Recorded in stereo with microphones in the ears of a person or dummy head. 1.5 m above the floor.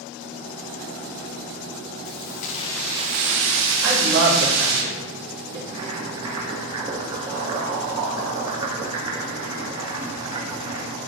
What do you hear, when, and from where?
2.0 s keys jangling: 60° left (ahead or behind), 1.4 m; by 4.8 s 75° right (ahead or behind), 3 m
3.8 s a woman speaking: 75° right (ahead or behind), 3.5 m
5.7 s boiling: 25° right (ahead or behind), 1.5 m